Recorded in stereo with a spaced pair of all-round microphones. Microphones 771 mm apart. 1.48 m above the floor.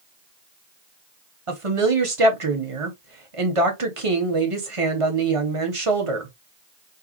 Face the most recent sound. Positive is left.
turn(degrees=-45)  # may be behind; listen again after turning